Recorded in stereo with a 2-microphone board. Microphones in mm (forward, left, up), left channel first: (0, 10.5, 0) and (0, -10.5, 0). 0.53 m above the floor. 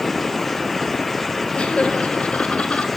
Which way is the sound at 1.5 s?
65° left (ahead or behind).